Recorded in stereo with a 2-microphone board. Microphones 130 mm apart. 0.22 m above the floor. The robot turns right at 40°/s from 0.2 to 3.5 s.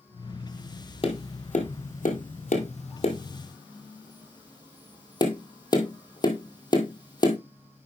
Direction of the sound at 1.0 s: 50° left (ahead or behind).